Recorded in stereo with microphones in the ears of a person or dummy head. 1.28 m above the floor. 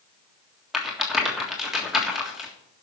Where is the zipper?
I don't hear a zipper.